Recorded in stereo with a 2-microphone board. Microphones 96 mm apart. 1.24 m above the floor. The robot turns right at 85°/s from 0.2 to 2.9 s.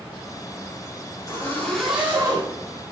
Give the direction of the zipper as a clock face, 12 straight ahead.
8 o'clock.